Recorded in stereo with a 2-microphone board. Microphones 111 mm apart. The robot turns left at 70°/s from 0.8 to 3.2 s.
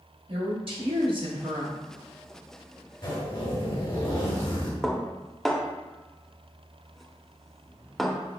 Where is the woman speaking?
80° right, 1.4 m; by 1.7 s 145° right, 1.4 m.